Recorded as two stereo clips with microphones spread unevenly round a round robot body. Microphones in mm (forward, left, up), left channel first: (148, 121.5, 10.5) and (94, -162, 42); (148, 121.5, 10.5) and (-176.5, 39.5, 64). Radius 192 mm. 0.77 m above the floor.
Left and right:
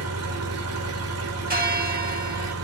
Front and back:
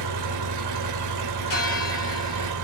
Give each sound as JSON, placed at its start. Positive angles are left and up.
{"t": 0.0, "sound": "an engine running", "azimuth_deg": -135, "distance_m": 1.0}
{"t": 1.5, "sound": "a bell", "azimuth_deg": -40, "distance_m": 1.9}